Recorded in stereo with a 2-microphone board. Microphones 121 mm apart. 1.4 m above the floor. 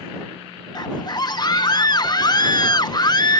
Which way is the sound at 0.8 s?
35° left (ahead or behind).